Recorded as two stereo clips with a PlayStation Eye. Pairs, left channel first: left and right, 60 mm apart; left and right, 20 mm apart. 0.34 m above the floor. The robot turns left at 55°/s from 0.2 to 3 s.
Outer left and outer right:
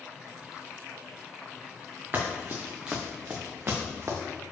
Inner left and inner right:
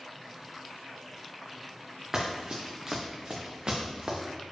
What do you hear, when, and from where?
2.1 s running footsteps: 40° right (ahead or behind), 1.4 m; by 4.2 s 50° right (ahead or behind), 1.6 m